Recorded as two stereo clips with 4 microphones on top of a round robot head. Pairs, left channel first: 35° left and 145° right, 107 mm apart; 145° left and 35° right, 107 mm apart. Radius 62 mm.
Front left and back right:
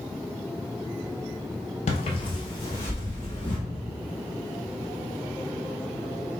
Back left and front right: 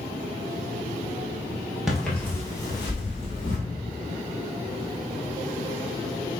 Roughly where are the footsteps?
Ahead left.